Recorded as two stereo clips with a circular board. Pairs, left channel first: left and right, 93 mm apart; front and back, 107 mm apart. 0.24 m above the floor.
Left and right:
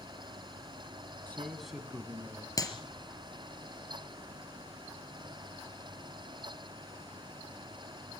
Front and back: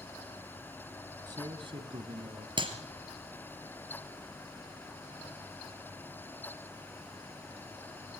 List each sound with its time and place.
1.3 s a man speaking: 155° left, 1.3 m; by 2.5 s 155° right, 2.5 m
2.6 s a clap: 140° left, 3 m